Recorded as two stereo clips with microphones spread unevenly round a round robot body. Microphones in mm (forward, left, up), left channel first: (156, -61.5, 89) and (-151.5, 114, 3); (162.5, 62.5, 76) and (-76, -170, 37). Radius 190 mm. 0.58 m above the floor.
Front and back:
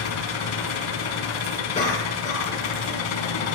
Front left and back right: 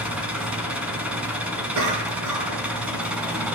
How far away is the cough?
About 10 m.